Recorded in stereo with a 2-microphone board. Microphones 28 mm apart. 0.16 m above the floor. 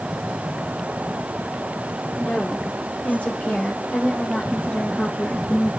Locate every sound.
2.1 s a woman speaking: 75° left (ahead or behind), 6 m; by 5.7 s 45° left (ahead or behind), 3.5 m